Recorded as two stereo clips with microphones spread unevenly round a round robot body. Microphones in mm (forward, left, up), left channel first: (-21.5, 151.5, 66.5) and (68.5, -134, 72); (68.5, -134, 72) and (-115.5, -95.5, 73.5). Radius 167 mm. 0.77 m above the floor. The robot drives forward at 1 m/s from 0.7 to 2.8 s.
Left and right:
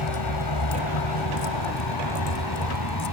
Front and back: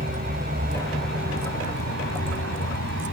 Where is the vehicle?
110° left; by 3.1 s 130° left.